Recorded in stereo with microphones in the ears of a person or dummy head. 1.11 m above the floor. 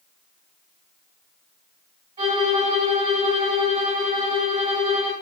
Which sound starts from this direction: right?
A violin, at 2.2 s.